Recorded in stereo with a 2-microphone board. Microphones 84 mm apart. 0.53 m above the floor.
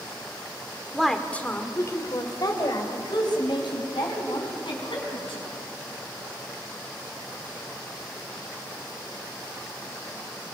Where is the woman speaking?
Centre (ahead or behind), 1.7 m; by 5.4 s 75° left (ahead or behind), 6 m.